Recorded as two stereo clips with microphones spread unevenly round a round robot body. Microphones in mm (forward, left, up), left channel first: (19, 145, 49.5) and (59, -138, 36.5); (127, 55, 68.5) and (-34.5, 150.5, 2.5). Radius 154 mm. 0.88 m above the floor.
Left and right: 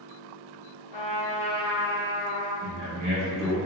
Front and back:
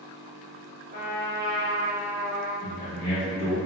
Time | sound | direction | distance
0.9 | a trumpet | 115° left | 1.4 m
2.6 | a man speaking | 105° right | 1.3 m